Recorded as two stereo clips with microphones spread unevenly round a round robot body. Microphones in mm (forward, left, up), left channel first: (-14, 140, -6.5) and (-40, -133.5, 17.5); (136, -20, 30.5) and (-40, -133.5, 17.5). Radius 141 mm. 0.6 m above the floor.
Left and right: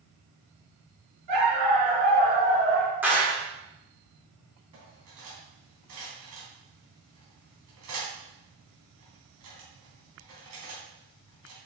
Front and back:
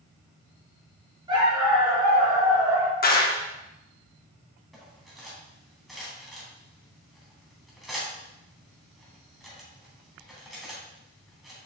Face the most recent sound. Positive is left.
turn(degrees=-55)